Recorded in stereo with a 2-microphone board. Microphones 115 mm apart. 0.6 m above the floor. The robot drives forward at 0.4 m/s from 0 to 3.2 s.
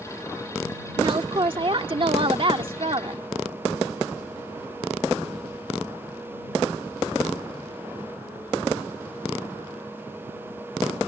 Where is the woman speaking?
45° right (ahead or behind); by 3.2 s 50° right (ahead or behind).